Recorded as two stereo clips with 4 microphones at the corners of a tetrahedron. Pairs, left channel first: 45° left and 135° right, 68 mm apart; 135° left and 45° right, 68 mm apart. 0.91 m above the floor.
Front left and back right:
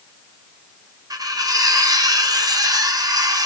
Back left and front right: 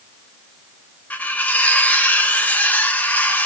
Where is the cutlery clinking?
155° right, 0.6 m.